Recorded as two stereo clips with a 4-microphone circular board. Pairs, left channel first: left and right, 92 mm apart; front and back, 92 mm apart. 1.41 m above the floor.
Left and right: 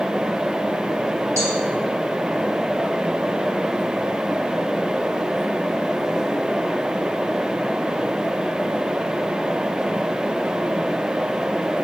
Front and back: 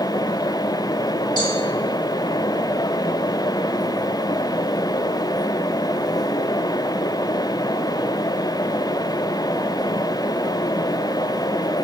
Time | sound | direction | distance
1.4 | a cowbell | 35° right | 4 m